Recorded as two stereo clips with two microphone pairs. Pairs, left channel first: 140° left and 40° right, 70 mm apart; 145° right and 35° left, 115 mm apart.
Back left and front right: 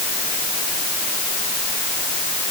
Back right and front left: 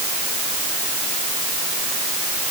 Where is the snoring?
I don't hear snoring.